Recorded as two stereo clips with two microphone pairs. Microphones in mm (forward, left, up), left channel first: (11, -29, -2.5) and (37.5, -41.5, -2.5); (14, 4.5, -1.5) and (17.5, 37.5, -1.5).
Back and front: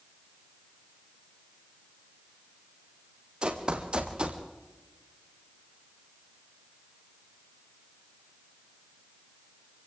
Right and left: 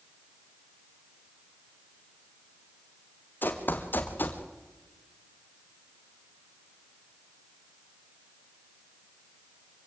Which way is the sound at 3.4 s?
80° right.